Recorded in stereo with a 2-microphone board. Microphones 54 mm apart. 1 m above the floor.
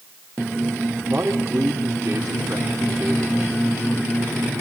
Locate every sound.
1.1 s a man speaking: 30° right (ahead or behind), 3 m